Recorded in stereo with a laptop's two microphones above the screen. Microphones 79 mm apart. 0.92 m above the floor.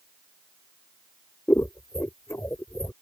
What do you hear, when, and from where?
1.5 s scissors: 30° left (ahead or behind)